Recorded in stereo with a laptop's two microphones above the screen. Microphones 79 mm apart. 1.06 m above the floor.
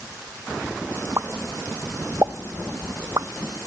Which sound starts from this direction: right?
A pop, at 1.2 s.